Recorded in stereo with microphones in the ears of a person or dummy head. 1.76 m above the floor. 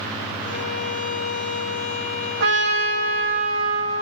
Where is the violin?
40° left (ahead or behind), 1.1 m.